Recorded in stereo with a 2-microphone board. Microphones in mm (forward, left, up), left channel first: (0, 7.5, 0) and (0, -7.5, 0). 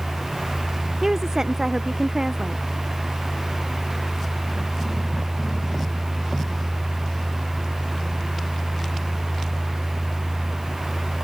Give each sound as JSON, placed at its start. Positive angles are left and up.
{"t": 1.0, "sound": "a woman speaking", "side_deg": -35}